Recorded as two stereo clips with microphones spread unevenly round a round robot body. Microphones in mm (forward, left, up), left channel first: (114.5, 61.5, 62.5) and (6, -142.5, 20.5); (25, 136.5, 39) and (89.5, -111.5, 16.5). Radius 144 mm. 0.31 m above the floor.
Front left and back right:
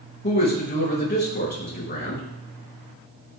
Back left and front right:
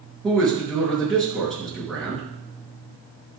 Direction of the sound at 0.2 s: 15° left.